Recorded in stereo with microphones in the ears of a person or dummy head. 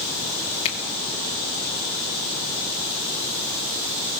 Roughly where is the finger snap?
Left.